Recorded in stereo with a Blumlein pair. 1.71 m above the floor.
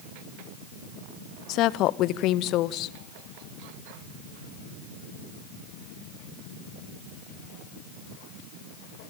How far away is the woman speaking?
About 1.0 m.